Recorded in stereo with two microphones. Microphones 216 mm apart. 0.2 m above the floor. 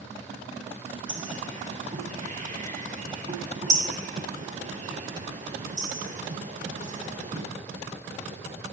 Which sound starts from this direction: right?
A bird, at 1.1 s.